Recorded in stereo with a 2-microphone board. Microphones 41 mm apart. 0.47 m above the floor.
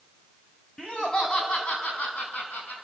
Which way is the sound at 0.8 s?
20° left (ahead or behind).